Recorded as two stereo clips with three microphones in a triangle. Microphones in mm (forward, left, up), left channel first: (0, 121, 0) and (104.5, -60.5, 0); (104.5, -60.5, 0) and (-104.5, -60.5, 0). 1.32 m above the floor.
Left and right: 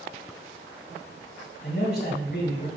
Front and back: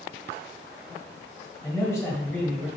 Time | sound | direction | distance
1.6 | a man speaking | 80° left | 1.4 m